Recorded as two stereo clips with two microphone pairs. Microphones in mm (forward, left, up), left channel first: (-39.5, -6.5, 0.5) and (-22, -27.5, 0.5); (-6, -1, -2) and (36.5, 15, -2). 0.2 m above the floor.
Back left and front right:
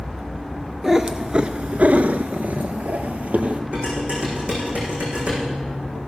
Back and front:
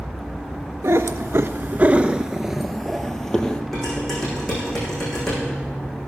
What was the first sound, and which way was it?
A cat meowing, 25° left.